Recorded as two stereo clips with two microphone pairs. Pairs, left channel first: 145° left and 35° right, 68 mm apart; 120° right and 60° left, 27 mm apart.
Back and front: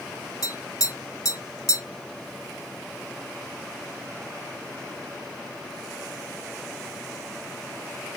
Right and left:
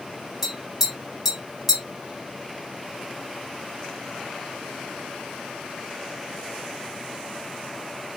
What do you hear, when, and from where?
0.4 s tapping: 140° left, 1.5 m